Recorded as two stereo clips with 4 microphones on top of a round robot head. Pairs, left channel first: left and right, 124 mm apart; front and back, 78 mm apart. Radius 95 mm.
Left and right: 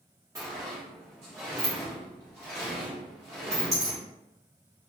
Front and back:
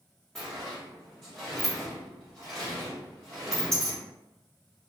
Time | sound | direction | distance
0.3 | a sliding door | 70° right | 0.6 m